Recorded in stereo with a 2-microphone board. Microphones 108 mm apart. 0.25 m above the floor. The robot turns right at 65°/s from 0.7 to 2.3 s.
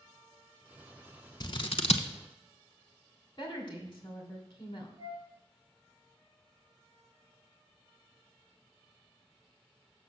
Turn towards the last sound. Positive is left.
turn(degrees=-35)  # may be behind; listen again after turning